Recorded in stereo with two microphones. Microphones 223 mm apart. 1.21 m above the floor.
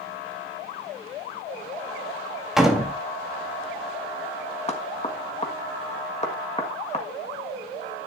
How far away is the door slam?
About 1.9 m.